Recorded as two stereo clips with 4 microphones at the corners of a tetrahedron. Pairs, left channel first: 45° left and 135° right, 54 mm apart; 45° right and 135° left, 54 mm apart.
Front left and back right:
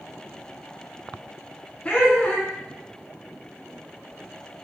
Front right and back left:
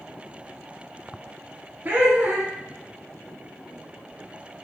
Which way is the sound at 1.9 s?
105° left.